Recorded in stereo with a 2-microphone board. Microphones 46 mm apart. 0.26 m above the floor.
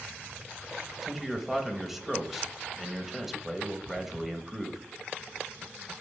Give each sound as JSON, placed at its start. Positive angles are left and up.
{"t": 1.0, "sound": "a man speaking", "side_deg": -5, "distance_m": 0.9}